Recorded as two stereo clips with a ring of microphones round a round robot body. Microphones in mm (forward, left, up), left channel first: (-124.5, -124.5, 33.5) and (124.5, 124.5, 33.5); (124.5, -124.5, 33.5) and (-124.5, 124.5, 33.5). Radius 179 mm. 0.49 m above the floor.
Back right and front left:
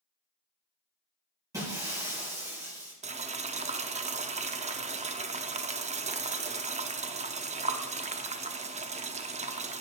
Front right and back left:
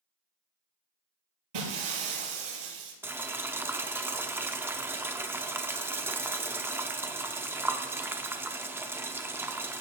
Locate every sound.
1.5 s breaking glass: 125° left, 6 m
3.0 s boiling: 65° left, 0.9 m